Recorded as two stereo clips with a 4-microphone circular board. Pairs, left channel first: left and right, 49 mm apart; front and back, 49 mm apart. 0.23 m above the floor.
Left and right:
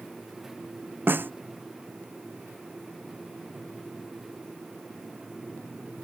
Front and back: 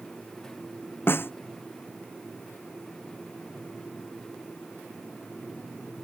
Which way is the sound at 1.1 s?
45° right.